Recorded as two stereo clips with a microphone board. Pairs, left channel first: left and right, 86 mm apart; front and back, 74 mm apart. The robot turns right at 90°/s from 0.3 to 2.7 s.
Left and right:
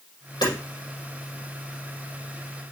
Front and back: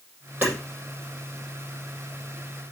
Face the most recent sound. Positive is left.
turn(degrees=-35)